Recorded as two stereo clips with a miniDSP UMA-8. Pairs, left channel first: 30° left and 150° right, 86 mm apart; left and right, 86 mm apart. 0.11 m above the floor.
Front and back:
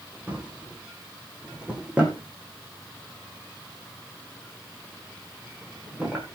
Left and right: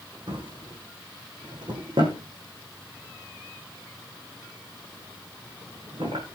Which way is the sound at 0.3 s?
75° right.